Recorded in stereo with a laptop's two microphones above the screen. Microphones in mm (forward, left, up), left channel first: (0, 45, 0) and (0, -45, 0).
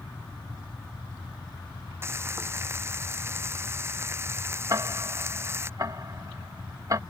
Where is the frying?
30° right (ahead or behind).